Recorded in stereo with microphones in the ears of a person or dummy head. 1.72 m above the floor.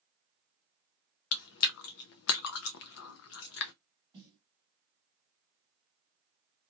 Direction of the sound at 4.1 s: 20° right (ahead or behind).